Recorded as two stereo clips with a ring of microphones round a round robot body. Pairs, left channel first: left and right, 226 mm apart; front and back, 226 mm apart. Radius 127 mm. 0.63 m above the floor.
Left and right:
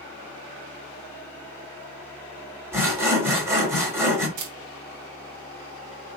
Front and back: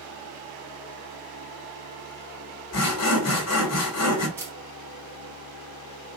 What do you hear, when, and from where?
2.7 s sawing: 10° right, 1.6 m
4.4 s a camera shutter: 100° right, 1.0 m